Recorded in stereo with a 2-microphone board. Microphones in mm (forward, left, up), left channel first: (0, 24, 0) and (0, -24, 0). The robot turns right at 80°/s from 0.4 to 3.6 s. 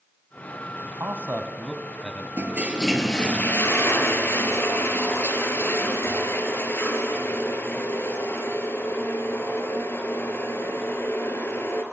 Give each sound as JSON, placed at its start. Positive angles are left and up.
{"t": 0.8, "sound": "a man speaking", "side_deg": -65, "distance_m": 2.5}
{"t": 2.4, "sound": "a toilet flushing", "azimuth_deg": -45, "distance_m": 3.0}